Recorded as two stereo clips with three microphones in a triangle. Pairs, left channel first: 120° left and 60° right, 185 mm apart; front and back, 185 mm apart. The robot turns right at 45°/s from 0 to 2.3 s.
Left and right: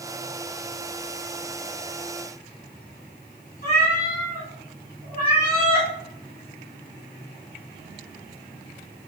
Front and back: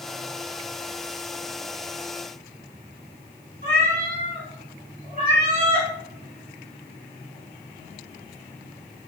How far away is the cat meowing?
About 1.9 m.